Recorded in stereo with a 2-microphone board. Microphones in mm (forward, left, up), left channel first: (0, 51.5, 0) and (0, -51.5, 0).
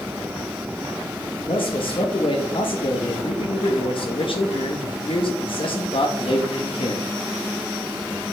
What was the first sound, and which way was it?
A man speaking, 60° left (ahead or behind).